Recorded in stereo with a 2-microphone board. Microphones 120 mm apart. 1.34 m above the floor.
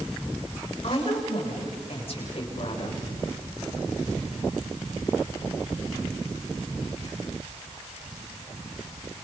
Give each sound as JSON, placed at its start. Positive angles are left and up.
{"t": 0.8, "sound": "a woman speaking", "side_deg": 50, "distance_m": 6.5}